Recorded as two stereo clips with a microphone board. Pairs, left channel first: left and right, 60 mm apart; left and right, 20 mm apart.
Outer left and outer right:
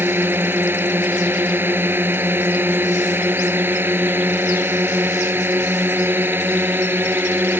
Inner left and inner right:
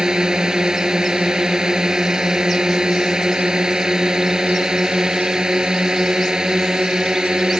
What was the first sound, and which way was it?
A drone, 35° right (ahead or behind).